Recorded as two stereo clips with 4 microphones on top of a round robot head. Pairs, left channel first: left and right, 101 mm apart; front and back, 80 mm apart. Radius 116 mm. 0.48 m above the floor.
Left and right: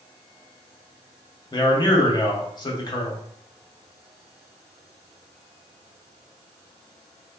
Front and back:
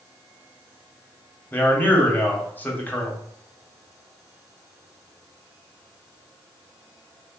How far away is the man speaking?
About 1.0 m.